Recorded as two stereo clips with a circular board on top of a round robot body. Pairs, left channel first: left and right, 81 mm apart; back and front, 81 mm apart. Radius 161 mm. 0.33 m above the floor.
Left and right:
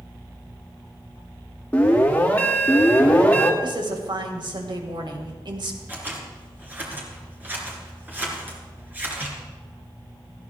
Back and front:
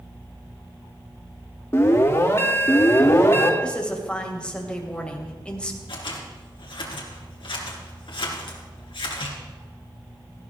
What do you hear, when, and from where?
1.7 s an alarm: 150° left, 2 m
3.6 s a woman speaking: 105° right, 2.5 m
5.9 s scissors: 160° right, 3 m